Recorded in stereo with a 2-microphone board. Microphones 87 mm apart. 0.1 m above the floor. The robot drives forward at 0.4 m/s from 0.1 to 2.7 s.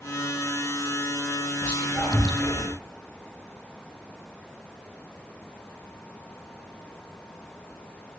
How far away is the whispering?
About 1.7 m.